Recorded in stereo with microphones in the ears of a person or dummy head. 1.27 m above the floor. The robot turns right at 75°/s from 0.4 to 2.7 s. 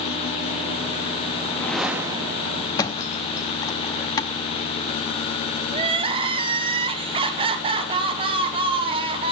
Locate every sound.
1.4 s a whoosh: 155° left, 0.9 m; by 2.7 s 110° right, 0.9 m
2.8 s a thud: 20° left (ahead or behind), 0.9 m
5.7 s crying: 30° right (ahead or behind), 0.8 m